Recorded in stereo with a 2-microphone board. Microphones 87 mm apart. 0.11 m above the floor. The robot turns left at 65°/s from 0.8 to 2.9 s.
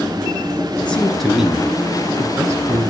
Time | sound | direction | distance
0.8 | a man speaking | 30° left | 1.2 m